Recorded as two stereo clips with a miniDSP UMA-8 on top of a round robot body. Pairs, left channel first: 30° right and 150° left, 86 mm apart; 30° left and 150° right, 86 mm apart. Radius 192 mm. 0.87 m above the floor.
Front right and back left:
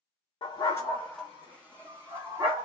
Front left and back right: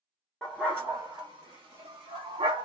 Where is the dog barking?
55° right, 0.5 m; by 2.7 s 155° right, 1.1 m.